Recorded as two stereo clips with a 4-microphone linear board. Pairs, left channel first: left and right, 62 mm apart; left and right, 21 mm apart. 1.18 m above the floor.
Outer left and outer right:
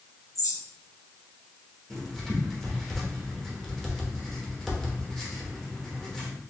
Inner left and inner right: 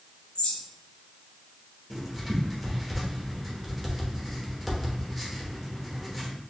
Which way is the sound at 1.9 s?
5° left (ahead or behind).